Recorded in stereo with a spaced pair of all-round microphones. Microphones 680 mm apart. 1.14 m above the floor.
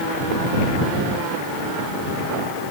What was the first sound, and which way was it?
Only background noise.